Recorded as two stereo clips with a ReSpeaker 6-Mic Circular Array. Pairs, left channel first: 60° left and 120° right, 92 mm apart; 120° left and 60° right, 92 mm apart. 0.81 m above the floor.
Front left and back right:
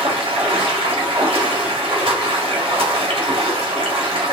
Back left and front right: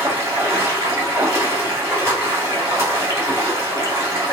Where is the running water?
120° right, 1.6 m.